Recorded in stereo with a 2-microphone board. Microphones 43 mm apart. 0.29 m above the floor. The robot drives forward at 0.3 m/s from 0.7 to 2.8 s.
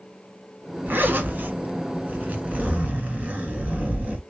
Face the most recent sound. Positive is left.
turn(degrees=-35)  # may be behind; listen again after turning